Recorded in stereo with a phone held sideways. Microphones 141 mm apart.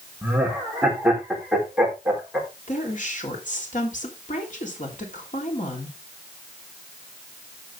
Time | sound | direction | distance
0.2 | laughter | 10° right (ahead or behind) | 4 m
2.7 | a woman speaking | 65° left (ahead or behind) | 3.5 m